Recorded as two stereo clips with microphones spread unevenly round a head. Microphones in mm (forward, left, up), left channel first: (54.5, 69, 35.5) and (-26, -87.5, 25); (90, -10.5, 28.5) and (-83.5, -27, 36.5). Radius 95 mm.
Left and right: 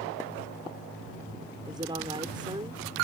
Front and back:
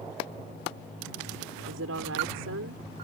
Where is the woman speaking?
175° left.